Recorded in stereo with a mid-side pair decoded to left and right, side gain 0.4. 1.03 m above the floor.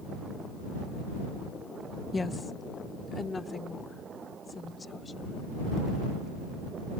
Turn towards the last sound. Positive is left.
turn(degrees=35)